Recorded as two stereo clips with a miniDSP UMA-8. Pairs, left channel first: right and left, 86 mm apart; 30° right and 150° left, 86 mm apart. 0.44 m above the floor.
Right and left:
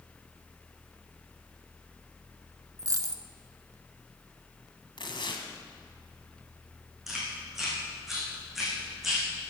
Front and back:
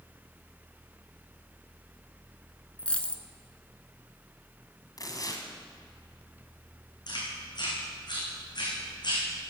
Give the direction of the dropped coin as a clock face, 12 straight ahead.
10 o'clock.